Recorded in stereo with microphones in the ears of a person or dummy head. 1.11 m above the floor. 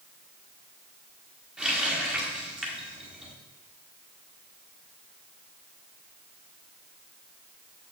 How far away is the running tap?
About 1.5 m.